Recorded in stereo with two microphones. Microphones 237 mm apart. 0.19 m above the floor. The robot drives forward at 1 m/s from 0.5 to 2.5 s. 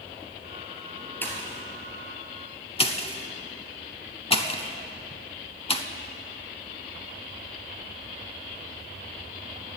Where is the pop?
10° left (ahead or behind), 1.6 m; by 5.8 s 25° left (ahead or behind), 0.6 m.